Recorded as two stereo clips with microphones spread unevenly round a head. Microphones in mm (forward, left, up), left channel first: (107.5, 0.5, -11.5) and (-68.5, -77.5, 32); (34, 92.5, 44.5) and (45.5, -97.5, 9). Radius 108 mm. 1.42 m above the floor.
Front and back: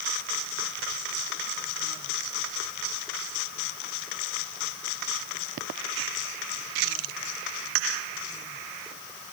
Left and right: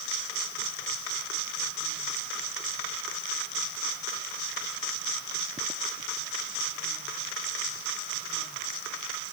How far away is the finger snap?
I don't hear a finger snap.